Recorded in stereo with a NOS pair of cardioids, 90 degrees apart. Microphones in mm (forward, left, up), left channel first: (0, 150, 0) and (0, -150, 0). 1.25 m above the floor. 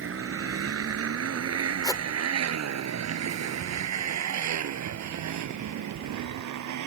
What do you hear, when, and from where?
0.0 s a motorcycle: 45° right; by 6.9 s 70° right
1.8 s a whoosh: 10° left